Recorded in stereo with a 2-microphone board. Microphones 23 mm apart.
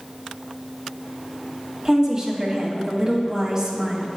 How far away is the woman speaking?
About 1.1 m.